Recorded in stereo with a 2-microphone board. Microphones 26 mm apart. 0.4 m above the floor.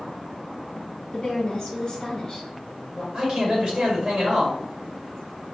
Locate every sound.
1.1 s a woman speaking: 20° left (ahead or behind), 1.2 m
3.1 s a man speaking: 35° right (ahead or behind), 1.7 m